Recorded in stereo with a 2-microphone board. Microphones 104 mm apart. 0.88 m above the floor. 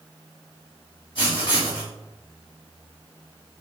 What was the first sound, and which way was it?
Writing, 60° left (ahead or behind).